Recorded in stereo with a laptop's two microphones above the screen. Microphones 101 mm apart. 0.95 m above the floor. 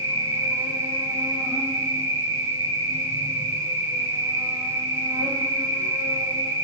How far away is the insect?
About 0.9 m.